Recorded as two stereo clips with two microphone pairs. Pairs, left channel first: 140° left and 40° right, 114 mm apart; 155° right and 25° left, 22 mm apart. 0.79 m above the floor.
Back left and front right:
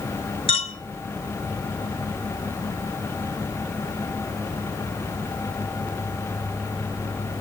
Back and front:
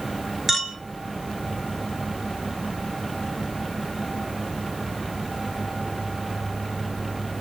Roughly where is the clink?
Left.